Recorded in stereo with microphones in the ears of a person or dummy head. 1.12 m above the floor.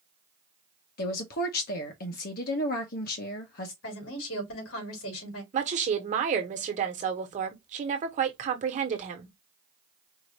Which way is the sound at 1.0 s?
55° left (ahead or behind).